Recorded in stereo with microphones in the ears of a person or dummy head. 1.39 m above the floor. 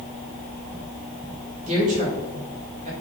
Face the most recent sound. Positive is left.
turn(degrees=-40)  # may be behind; listen again after turning